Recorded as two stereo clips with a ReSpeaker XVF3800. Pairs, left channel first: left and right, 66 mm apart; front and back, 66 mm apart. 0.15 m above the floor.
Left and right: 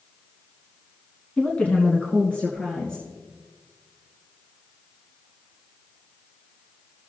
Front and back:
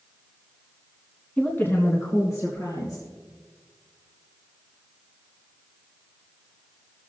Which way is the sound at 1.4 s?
45° left.